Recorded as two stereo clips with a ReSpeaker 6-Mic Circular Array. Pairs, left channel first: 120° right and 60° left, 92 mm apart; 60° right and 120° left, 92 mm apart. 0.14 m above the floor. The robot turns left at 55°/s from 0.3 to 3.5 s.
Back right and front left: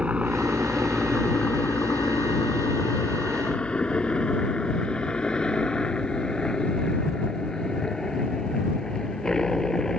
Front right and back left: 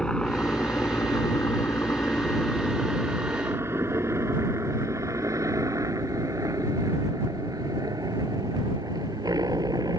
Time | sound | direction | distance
0.0 | a helicopter | 10° left | ?